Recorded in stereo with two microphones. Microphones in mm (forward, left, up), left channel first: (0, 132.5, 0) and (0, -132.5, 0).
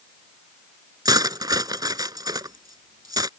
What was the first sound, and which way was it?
Cutlery clinking, 15° right (ahead or behind).